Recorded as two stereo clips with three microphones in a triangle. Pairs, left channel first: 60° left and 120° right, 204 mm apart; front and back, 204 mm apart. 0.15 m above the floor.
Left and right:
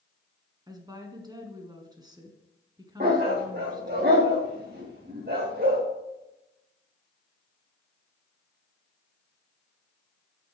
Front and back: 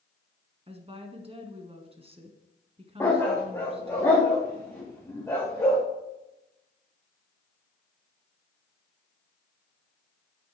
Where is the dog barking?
75° right, 3.5 m.